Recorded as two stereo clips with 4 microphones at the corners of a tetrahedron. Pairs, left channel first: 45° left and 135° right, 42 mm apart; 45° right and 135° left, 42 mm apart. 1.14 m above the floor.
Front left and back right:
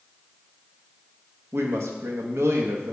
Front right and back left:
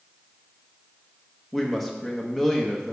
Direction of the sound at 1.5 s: 130° right.